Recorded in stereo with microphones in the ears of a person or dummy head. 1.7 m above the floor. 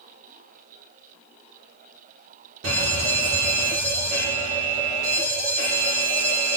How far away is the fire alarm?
About 3.5 m.